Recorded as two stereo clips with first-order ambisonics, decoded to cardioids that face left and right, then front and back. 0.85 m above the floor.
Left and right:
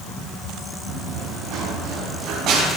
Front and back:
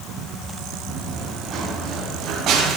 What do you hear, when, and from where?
0.9 s running footsteps: 120° right, 7.5 m; by 2.8 s 135° right, 8 m